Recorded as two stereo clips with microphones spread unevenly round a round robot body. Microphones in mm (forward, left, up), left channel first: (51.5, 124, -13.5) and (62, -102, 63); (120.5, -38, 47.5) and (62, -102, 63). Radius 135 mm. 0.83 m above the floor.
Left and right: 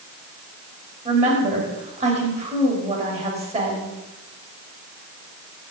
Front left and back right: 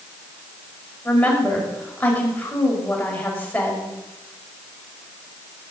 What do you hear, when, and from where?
1.1 s a woman speaking: 25° right, 5.5 m